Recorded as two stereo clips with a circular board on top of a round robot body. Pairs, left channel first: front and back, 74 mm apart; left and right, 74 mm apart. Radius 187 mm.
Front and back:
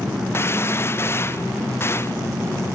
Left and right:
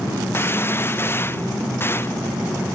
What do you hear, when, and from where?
0.3 s a gunshot: 40° left